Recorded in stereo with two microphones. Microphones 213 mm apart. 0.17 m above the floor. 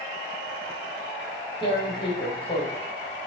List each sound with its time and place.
1.6 s tearing paper: 25° left (ahead or behind), 4 m